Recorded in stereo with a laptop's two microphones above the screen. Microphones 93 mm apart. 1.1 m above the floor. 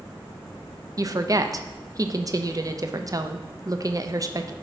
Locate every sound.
1.0 s a woman speaking: 40° right (ahead or behind), 0.7 m